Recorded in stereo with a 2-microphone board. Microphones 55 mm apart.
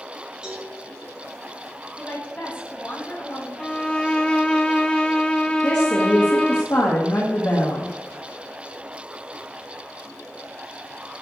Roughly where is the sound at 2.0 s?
Left.